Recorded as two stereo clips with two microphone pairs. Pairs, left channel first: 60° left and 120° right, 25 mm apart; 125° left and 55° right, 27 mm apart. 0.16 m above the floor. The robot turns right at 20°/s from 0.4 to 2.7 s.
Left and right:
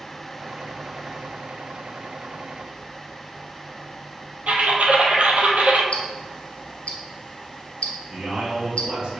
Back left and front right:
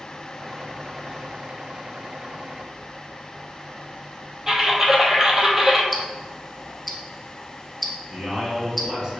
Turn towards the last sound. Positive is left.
turn(degrees=-110)